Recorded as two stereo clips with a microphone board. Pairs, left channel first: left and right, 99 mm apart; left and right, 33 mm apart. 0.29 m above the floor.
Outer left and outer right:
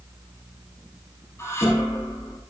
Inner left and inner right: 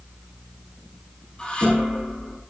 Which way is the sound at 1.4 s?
25° left (ahead or behind).